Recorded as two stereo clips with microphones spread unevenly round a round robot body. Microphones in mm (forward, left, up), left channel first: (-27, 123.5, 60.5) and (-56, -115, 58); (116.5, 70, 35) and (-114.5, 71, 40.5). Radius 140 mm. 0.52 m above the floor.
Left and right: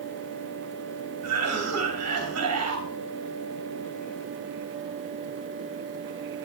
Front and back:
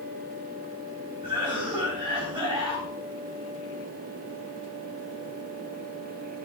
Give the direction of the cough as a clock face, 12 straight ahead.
4 o'clock.